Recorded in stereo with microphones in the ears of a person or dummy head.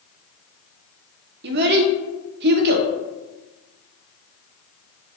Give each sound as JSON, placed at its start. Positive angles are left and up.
{"t": 1.4, "sound": "a child speaking", "side_deg": -50, "distance_m": 0.5}